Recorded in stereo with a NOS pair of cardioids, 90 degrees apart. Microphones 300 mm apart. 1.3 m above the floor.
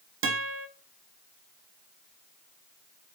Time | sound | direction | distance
0.2 | a guitar | 45° right | 0.6 m